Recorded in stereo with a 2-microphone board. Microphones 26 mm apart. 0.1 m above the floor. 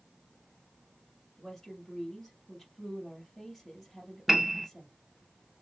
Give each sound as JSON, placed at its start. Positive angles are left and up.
{"t": 1.4, "sound": "a woman speaking", "side_deg": 20, "distance_m": 2.0}
{"t": 4.3, "sound": "a piano", "side_deg": -5, "distance_m": 0.7}